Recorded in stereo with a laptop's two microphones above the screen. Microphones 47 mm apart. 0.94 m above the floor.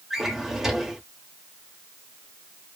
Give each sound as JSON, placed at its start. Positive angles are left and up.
{"t": 0.1, "sound": "a drawer", "side_deg": -10, "distance_m": 0.9}